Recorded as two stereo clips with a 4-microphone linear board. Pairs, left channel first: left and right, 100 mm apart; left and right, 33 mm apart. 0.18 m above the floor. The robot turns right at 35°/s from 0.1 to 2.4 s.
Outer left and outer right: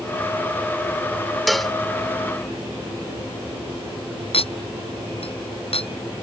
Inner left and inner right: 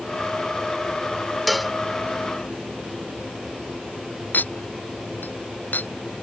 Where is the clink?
70° left (ahead or behind).